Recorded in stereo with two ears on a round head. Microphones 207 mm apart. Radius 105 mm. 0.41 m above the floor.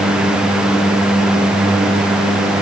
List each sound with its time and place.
Only background noise.